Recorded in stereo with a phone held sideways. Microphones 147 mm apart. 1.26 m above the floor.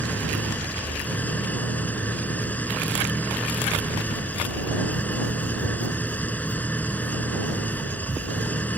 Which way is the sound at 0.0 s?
10° left (ahead or behind).